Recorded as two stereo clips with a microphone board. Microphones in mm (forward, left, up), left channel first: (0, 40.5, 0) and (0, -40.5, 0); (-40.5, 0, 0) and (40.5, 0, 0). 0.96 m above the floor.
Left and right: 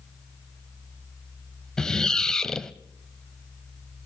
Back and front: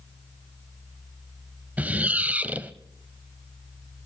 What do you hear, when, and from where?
1.8 s a squeak: 20° left, 0.8 m